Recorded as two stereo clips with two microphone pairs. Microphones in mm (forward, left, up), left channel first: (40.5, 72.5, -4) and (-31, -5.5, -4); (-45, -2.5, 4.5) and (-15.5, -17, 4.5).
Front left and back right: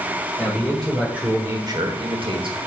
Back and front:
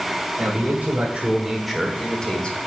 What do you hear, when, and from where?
0.4 s a man speaking: 25° right, 1.9 m; by 2.6 s 155° right, 2.0 m